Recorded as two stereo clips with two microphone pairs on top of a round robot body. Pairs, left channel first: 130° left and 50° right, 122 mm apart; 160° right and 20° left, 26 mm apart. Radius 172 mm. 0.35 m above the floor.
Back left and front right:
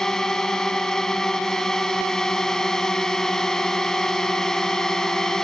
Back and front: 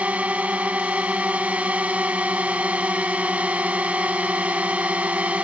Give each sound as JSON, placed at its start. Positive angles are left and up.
{"t": 0.0, "sound": "a drone", "azimuth_deg": 45}